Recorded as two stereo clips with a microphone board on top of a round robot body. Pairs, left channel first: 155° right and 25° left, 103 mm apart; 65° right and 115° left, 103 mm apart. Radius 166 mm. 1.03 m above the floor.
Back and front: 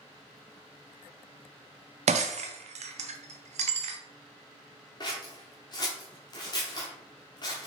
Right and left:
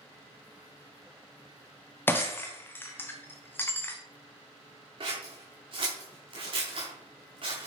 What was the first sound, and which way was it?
Breaking glass, 5° left.